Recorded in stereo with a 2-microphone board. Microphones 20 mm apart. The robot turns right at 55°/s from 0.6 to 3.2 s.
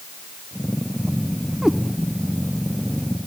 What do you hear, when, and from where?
1.6 s a cat meowing: 40° right (ahead or behind), 1.0 m; by 1.8 s 30° right (ahead or behind), 1.0 m